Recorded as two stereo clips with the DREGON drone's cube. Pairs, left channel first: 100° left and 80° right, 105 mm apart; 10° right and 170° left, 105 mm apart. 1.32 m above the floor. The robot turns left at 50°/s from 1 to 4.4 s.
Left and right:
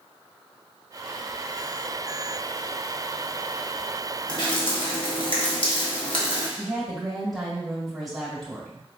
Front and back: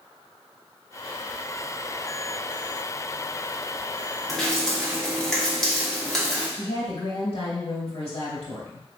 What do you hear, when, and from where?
4.3 s dripping: 80° left, 1.2 m; by 6.5 s 70° left, 1.2 m
6.6 s a woman speaking: 10° left, 2.5 m